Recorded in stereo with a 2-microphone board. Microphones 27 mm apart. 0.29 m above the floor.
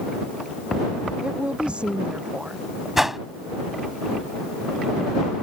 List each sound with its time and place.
1.2 s a woman speaking: 35° right (ahead or behind)
3.0 s a whoosh: 10° right (ahead or behind)